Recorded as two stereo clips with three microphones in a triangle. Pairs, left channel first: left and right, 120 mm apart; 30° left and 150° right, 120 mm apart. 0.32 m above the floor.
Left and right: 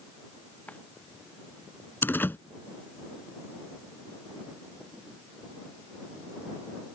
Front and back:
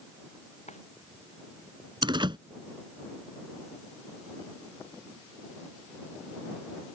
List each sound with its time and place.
0.7 s a drawer: 10° left
2.0 s a door slam: 165° left